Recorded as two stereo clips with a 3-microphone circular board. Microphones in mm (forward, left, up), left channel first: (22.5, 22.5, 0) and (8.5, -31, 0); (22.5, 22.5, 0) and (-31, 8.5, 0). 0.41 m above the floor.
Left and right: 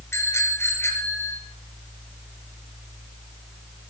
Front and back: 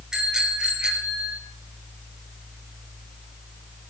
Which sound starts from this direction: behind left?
A bicycle bell, at 0.1 s.